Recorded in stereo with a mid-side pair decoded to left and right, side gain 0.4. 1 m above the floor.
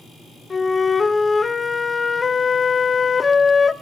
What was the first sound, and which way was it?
A flute, 30° left.